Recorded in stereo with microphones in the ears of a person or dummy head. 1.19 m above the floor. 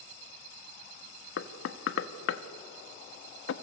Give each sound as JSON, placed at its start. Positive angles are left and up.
{"t": 1.4, "sound": "knocking", "side_deg": 70, "distance_m": 1.0}